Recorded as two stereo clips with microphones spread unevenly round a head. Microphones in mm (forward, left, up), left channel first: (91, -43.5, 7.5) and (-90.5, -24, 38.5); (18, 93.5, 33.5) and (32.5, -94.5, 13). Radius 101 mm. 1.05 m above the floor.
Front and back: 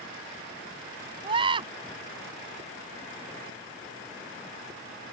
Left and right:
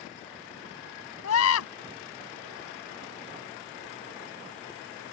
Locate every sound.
1.2 s a scream: 110° left